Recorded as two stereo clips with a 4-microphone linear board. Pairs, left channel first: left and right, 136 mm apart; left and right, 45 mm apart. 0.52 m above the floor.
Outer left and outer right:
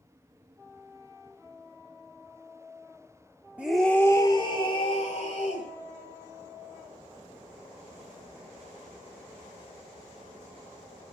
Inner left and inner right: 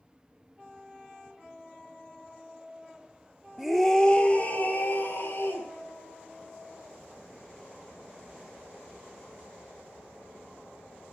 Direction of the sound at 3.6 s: 10° right (ahead or behind).